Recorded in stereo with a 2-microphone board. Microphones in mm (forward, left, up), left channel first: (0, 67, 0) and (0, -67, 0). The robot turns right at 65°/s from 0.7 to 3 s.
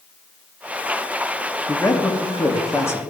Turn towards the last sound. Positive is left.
turn(degrees=15)  # may be behind; listen again after turning